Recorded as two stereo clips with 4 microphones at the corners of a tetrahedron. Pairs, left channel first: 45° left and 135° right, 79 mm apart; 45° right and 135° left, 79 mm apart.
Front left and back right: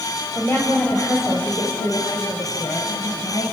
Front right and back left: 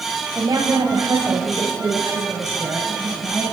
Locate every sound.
0.3 s a woman speaking: 110° left, 4 m; by 3.4 s 65° left, 4.5 m